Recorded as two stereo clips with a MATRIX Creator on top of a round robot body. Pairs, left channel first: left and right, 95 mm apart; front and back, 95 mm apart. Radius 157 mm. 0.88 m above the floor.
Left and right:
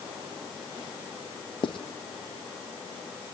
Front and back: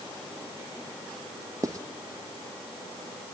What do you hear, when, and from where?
1.6 s writing: 125° left, 1.0 m